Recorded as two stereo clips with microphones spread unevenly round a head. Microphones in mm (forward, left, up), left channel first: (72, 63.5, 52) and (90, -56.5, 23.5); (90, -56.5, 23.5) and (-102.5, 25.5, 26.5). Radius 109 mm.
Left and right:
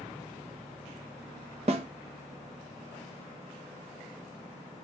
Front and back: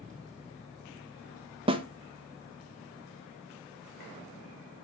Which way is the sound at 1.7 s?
145° right.